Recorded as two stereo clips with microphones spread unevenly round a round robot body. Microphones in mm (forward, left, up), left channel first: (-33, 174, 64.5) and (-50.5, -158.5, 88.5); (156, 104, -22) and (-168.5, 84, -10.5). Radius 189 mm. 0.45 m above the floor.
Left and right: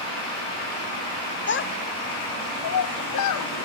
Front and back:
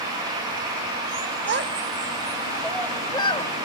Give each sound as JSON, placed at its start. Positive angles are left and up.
{"t": 1.5, "sound": "a child speaking", "azimuth_deg": 135, "distance_m": 1.2}